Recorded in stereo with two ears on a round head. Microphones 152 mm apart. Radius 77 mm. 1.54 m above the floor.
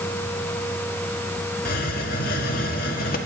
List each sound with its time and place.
1.6 s a hiss: 60° left (ahead or behind), 1.9 m